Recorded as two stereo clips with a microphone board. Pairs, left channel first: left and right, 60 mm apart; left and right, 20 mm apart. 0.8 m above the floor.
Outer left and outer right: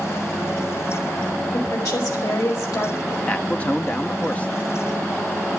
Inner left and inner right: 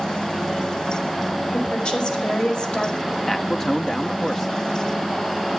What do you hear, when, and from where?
1.5 s a woman speaking: 70° left (ahead or behind), 5 m
3.3 s a man speaking: 20° left (ahead or behind), 1.0 m